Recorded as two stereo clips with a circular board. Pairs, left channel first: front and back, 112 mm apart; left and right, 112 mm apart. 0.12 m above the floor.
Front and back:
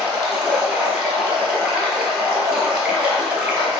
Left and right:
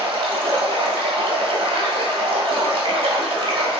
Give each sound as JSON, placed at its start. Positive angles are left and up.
{"t": 0.0, "sound": "running water", "azimuth_deg": -100, "distance_m": 1.0}